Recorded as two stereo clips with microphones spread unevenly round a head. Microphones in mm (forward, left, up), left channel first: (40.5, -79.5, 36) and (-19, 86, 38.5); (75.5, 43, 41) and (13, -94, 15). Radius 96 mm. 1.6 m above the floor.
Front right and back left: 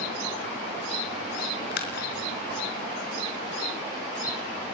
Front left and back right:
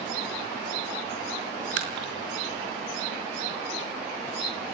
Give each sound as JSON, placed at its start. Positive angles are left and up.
{"t": 1.7, "sound": "a splash", "azimuth_deg": -110, "distance_m": 5.0}